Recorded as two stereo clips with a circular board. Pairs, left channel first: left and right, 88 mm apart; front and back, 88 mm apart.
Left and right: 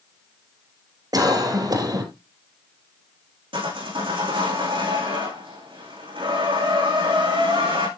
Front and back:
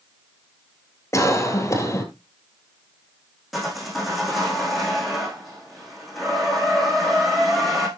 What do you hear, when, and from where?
1.1 s a cough: 50° right, 3 m
3.5 s sawing: 90° right, 8 m